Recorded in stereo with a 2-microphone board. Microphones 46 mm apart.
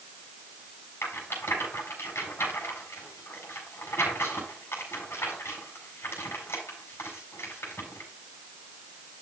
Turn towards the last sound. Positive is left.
turn(degrees=75)  # may be behind; listen again after turning